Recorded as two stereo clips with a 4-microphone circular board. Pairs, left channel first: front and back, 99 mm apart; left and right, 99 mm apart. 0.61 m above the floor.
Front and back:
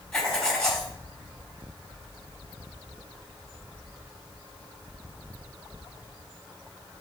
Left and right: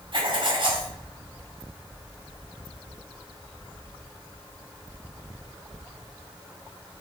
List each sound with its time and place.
0.1 s writing: 80° right, 1.9 m